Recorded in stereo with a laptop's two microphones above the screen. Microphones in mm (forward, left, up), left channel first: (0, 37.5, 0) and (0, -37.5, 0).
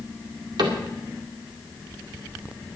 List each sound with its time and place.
0.6 s a cupboard door: 65° right (ahead or behind), 2 m